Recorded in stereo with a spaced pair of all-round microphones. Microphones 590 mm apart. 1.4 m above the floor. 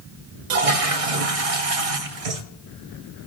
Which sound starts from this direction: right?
A toilet flushing, at 0.5 s.